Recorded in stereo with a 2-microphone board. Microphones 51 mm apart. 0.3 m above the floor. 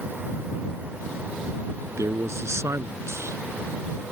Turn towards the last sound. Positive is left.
turn(degrees=-65)  # may be behind; listen again after turning